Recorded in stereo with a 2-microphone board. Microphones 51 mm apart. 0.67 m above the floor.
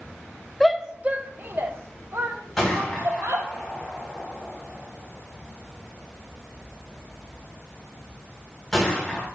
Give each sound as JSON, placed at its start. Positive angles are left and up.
{"t": 0.6, "sound": "a shout", "side_deg": 5, "distance_m": 0.8}
{"t": 2.6, "sound": "a gunshot", "side_deg": 5, "distance_m": 5.0}